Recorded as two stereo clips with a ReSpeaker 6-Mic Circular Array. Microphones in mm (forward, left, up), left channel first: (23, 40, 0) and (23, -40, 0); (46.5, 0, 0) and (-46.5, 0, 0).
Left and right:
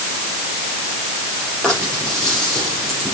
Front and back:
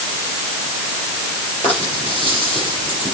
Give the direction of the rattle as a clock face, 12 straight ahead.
12 o'clock.